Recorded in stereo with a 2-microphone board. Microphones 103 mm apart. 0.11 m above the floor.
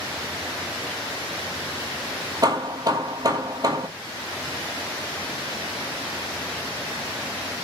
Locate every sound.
2.4 s hammering: 35° right (ahead or behind), 1.1 m